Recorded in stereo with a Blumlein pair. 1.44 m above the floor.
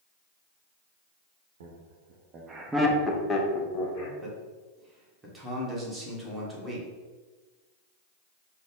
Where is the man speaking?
5° right, 1.3 m.